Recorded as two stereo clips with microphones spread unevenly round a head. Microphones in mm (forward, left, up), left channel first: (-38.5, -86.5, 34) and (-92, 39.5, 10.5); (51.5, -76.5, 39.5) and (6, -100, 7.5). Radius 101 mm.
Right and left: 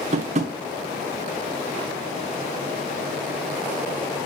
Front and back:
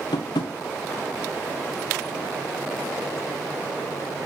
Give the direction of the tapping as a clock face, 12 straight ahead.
10 o'clock.